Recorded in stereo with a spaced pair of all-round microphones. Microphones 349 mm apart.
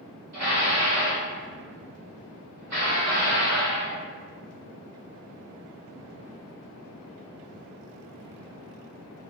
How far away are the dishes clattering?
About 1.2 m.